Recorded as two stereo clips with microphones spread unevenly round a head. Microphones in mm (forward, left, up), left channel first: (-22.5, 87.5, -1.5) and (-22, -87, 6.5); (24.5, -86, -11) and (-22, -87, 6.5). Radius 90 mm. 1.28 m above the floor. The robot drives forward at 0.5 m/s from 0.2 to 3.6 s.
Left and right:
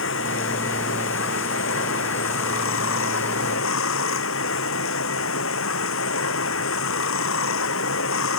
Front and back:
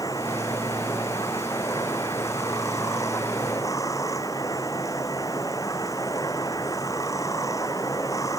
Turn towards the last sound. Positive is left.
turn(degrees=70)